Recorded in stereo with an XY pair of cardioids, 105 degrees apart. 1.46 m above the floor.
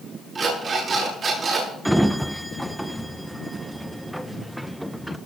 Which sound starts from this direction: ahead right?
An alarm clock, at 0.3 s.